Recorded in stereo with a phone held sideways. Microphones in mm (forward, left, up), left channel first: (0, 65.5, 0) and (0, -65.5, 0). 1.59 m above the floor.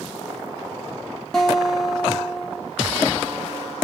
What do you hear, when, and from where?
1.3 s a guitar: 5° left (ahead or behind), 1.0 m